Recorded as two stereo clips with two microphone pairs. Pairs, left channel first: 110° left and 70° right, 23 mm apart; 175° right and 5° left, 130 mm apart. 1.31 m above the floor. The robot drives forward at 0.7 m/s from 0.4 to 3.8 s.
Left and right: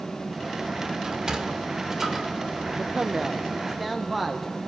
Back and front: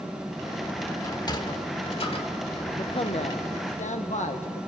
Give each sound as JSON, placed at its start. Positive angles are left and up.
{"t": 1.0, "sound": "a sliding door", "azimuth_deg": -115, "distance_m": 1.4}
{"t": 2.8, "sound": "a man speaking", "azimuth_deg": -125, "distance_m": 0.7}